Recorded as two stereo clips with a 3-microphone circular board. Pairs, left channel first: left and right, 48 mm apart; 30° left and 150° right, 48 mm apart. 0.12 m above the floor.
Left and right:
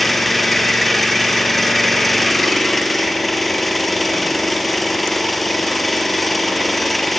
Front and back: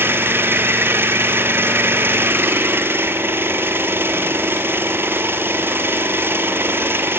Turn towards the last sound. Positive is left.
turn(degrees=175)